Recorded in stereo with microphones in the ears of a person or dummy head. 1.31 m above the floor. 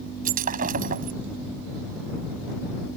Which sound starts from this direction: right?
Breaking glass, at 0.2 s.